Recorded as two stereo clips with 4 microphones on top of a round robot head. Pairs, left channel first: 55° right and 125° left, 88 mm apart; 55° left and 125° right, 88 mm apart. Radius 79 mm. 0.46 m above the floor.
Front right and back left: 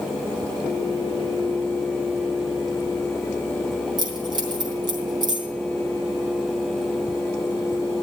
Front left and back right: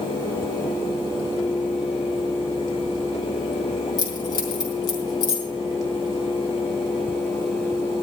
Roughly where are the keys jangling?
Left.